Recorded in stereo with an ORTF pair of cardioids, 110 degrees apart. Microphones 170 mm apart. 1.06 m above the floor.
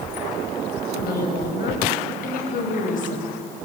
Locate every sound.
0.9 s a woman speaking: 65° left, 6 m; by 3.4 s 50° left, 5.5 m